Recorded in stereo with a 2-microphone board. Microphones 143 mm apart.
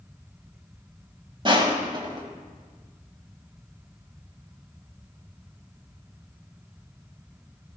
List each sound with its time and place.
1.4 s crushing: 35° right (ahead or behind), 1.5 m